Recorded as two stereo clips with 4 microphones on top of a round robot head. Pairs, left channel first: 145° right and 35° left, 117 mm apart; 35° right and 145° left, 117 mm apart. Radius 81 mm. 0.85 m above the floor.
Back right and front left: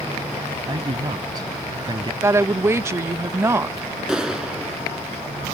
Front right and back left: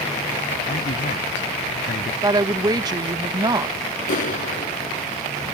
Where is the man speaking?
20° right.